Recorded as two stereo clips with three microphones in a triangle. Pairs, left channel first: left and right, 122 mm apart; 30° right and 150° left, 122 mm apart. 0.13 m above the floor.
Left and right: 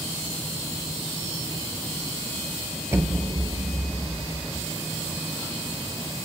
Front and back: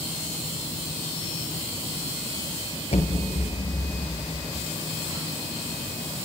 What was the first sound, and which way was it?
An explosion, 25° right.